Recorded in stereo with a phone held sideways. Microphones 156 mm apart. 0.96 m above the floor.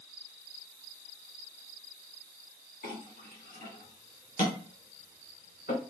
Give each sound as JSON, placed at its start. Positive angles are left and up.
{"t": 2.8, "sound": "a clink", "side_deg": 85, "distance_m": 2.0}